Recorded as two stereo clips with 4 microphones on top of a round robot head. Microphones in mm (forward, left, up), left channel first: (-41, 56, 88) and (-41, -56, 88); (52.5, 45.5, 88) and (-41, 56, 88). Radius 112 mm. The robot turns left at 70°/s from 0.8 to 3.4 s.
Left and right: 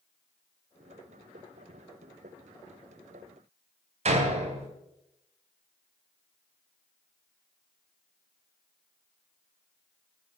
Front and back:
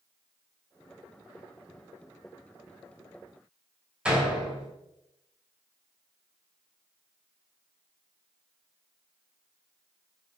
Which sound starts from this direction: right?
A door slam, at 4.0 s.